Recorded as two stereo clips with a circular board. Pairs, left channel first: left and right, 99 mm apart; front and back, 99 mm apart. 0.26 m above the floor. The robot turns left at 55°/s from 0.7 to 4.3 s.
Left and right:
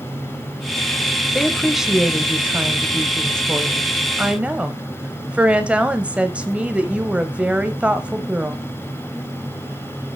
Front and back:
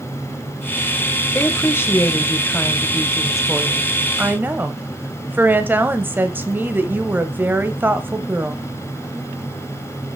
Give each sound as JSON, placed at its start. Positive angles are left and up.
{"t": 1.4, "sound": "a woman speaking", "azimuth_deg": 15, "distance_m": 0.9}